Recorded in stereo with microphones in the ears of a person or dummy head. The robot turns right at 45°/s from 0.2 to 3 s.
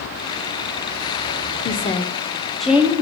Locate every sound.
1.6 s a woman speaking: 135° left, 0.6 m; by 3.0 s 165° right, 0.6 m